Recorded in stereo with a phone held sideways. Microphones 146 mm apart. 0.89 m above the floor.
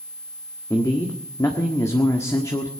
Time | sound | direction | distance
0.7 | a man speaking | 20° left (ahead or behind) | 1.5 m